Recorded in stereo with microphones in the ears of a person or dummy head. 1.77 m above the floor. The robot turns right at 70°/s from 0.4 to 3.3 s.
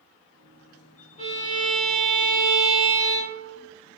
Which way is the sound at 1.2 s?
145° left.